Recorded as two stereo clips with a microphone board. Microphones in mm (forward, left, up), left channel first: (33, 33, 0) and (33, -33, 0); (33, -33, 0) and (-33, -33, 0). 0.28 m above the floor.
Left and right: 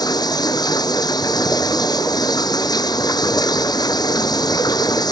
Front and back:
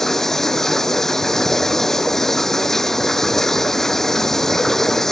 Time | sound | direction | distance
0.0 | running water | 85° left | ?